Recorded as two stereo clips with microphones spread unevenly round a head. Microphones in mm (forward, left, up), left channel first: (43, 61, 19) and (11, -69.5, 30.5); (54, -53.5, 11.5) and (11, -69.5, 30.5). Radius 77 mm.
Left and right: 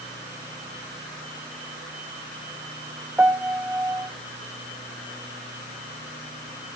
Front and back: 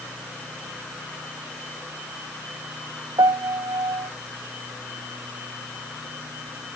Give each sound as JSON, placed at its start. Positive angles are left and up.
{"t": 3.2, "sound": "a piano", "azimuth_deg": 175, "distance_m": 0.8}